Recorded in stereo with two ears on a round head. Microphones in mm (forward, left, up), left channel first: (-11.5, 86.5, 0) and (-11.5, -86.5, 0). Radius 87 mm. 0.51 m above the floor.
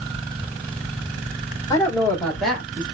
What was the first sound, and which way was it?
A woman speaking, 20° left (ahead or behind).